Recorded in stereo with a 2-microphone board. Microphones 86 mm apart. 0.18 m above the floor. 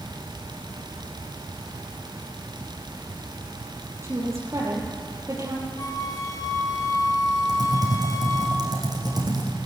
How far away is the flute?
About 1.2 m.